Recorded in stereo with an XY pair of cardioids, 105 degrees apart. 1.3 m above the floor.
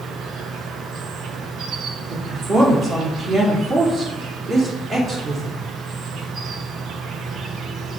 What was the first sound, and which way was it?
An insect, 65° right.